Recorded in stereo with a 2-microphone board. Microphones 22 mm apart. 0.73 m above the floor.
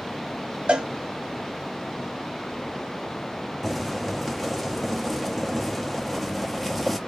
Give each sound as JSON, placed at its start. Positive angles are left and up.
{"t": 0.7, "sound": "a cowbell", "side_deg": -65, "distance_m": 0.7}
{"t": 3.6, "sound": "boiling", "side_deg": 5, "distance_m": 0.7}